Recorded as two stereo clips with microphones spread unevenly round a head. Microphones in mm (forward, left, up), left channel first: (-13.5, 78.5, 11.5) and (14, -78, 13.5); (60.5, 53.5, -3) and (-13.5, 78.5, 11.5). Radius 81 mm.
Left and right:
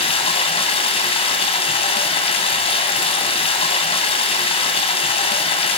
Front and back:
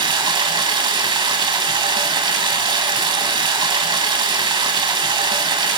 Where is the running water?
155° left, 2.5 m.